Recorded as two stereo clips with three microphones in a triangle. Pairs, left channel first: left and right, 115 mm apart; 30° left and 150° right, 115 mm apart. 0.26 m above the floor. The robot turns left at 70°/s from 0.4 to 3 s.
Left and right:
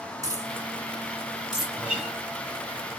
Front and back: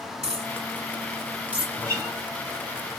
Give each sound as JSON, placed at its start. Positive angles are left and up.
{"t": 0.2, "sound": "a dropped coin", "azimuth_deg": -145, "distance_m": 1.0}
{"t": 1.8, "sound": "a guitar", "azimuth_deg": -150, "distance_m": 1.1}